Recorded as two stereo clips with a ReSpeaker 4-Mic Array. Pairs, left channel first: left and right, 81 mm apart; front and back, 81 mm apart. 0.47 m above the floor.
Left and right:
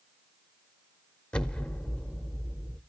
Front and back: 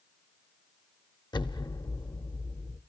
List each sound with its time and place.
1.3 s an explosion: 15° left, 0.6 m